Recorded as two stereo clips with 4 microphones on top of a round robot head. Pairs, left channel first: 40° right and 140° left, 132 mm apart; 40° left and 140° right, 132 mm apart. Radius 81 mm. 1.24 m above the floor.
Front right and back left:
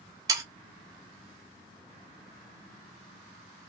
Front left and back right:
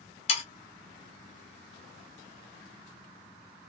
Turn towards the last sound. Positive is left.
turn(degrees=80)